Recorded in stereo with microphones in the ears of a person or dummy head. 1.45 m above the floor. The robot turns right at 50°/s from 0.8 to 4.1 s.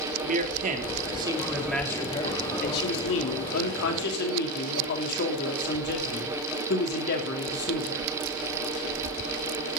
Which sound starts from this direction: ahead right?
A man speaking, at 0.2 s.